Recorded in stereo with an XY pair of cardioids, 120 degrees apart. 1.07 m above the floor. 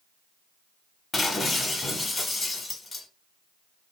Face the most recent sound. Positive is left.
turn(degrees=20)